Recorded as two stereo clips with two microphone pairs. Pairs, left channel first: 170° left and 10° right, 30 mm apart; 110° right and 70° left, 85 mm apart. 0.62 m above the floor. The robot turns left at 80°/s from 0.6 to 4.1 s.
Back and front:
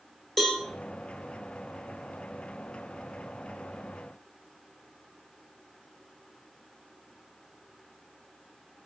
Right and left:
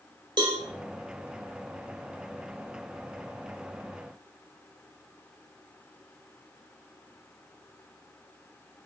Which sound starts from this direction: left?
A cowbell, at 0.4 s.